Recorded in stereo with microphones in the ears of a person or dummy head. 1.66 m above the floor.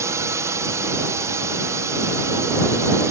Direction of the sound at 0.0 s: 15° right (ahead or behind).